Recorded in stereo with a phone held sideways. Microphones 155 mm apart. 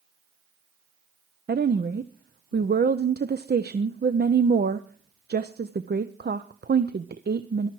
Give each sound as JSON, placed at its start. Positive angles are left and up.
{"t": 1.5, "sound": "a woman speaking", "side_deg": -80, "distance_m": 0.6}